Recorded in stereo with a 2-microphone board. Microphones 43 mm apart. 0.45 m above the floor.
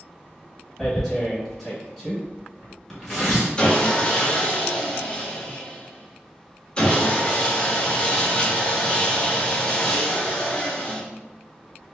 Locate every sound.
0.8 s tearing paper: 5° left (ahead or behind), 1.9 m
3.6 s sawing: 25° left (ahead or behind), 1.1 m